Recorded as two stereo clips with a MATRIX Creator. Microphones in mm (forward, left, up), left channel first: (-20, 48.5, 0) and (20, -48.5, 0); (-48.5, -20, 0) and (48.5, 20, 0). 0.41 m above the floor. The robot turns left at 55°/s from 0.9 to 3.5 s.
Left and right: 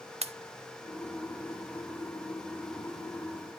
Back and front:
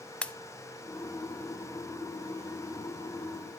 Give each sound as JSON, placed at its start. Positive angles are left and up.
{"t": 0.2, "sound": "a pop", "azimuth_deg": -80, "distance_m": 0.6}